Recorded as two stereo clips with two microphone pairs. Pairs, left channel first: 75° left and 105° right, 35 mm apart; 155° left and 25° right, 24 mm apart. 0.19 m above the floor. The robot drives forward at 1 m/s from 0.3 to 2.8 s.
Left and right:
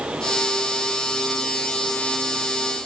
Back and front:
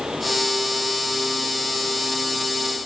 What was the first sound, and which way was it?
Only background noise.